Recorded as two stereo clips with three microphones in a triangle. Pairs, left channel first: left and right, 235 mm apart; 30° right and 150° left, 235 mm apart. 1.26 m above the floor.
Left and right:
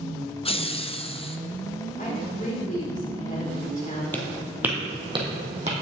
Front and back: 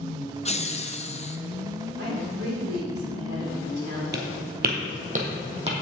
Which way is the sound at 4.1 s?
170° left.